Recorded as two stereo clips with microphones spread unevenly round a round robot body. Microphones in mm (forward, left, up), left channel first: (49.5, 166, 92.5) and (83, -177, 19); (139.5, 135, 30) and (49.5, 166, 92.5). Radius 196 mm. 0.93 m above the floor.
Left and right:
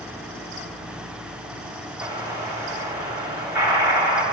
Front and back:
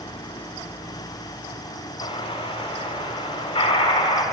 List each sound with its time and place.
2.0 s an explosion: 20° left, 0.7 m